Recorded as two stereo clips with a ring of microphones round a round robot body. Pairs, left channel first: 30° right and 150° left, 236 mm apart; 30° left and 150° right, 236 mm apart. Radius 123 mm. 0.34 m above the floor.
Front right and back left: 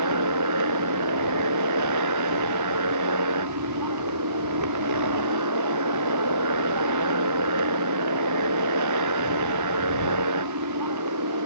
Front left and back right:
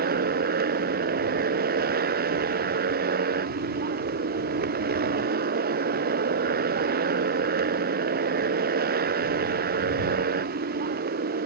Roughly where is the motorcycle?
Behind left.